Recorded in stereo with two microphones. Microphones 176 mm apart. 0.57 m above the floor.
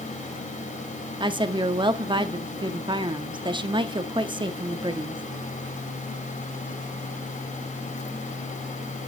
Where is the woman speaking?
25° right (ahead or behind), 0.6 m.